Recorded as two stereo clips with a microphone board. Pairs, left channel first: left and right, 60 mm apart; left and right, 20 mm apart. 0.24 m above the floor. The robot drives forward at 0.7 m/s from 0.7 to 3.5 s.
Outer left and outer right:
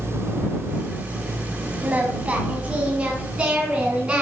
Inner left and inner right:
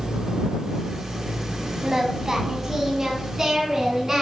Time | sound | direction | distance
1.8 | singing | 25° right (ahead or behind) | 1.8 m